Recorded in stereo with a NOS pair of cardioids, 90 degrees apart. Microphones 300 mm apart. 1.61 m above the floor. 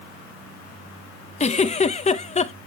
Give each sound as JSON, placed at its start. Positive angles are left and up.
{"t": 1.4, "sound": "a giggle", "azimuth_deg": 25, "distance_m": 0.6}